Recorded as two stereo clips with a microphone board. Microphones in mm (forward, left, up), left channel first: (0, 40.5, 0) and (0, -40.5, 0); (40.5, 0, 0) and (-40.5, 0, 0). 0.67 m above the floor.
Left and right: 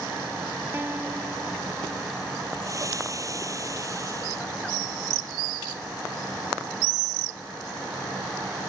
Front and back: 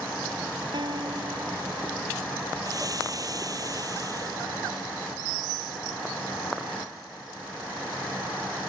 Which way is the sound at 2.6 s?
140° right.